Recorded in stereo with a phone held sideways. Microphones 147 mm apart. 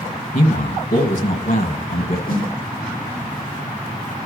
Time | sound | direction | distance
0.3 | a man speaking | 70° left (ahead or behind) | 1.8 m
2.3 | a snare drum | 70° left (ahead or behind) | 3.5 m